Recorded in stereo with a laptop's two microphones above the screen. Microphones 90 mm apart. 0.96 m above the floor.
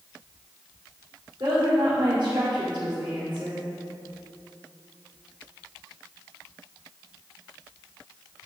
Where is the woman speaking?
80° right, 2 m.